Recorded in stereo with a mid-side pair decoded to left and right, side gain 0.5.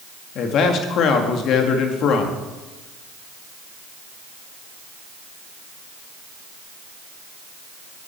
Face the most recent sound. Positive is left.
turn(degrees=65)